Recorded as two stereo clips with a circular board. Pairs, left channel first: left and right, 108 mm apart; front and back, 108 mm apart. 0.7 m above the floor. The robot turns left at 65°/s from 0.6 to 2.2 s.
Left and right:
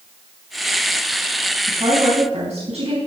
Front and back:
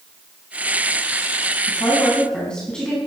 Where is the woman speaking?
45° right, 4.5 m; by 3.0 s 80° right, 4.5 m.